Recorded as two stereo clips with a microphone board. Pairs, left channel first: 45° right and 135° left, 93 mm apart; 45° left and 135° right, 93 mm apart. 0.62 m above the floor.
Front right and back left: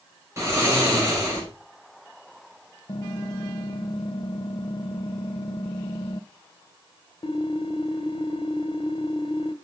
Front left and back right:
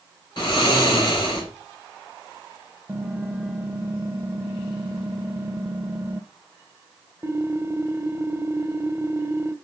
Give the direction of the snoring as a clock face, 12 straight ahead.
9 o'clock.